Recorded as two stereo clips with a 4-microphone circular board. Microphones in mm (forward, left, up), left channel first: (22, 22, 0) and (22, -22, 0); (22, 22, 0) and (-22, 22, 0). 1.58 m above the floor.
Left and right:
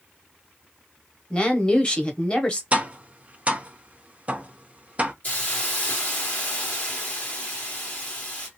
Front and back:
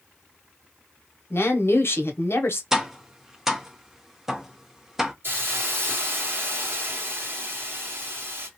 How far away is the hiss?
About 1.6 m.